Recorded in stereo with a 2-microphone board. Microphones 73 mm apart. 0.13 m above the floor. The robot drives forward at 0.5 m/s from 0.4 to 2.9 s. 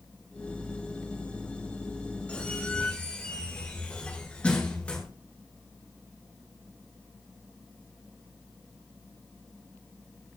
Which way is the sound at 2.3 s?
20° left (ahead or behind).